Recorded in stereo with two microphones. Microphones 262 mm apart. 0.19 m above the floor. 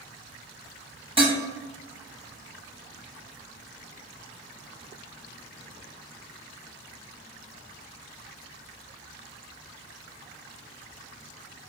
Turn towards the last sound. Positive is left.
turn(degrees=-20)  # may be behind; listen again after turning